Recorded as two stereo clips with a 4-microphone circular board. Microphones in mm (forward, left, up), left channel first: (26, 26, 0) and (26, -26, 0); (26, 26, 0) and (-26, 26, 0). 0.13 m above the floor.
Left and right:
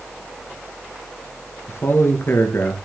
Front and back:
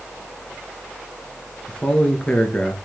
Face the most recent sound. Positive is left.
turn(degrees=65)